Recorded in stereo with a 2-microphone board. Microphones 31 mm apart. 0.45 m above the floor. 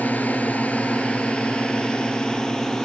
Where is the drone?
70° left (ahead or behind); by 2.9 s 20° left (ahead or behind).